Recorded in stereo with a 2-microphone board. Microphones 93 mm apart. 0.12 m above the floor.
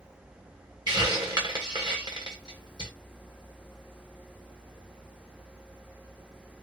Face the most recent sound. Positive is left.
turn(degrees=-45)  # may be behind; listen again after turning